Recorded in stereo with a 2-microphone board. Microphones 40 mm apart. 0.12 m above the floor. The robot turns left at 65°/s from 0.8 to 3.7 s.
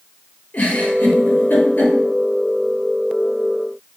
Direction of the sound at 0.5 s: 40° left (ahead or behind).